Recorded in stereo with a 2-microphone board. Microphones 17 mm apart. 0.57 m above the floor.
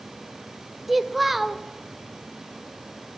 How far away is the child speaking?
About 0.7 m.